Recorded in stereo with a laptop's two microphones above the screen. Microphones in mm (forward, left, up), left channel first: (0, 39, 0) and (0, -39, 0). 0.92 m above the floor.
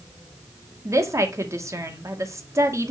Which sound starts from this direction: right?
A woman speaking, at 0.8 s.